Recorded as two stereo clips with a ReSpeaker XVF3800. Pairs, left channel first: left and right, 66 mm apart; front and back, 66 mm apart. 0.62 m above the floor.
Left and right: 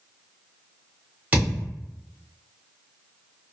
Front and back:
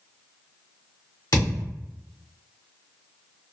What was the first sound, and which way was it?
A thud, 25° right.